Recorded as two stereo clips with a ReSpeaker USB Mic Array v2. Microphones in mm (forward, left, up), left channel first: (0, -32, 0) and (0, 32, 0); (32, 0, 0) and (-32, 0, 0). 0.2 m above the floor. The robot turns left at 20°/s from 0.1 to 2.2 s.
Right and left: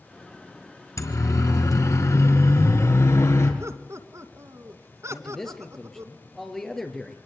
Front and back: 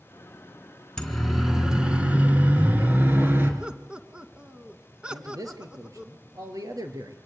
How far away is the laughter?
About 2.5 m.